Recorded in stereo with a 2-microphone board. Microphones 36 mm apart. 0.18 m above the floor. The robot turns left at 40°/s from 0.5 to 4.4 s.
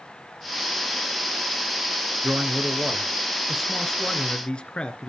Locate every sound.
2.2 s a man speaking: 130° right, 2.5 m; by 5.1 s 145° left, 2.5 m